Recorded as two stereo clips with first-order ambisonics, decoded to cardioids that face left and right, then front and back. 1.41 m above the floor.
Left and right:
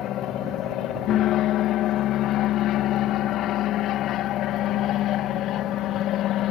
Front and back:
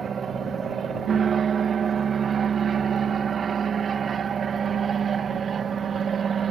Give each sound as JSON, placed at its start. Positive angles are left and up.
{"t": 0.0, "sound": "an aircraft", "azimuth_deg": 120}